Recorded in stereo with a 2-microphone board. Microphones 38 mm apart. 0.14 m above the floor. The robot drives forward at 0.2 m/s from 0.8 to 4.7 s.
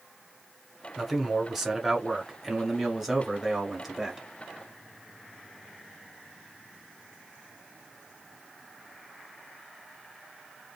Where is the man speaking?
Centre (ahead or behind), 1.1 m.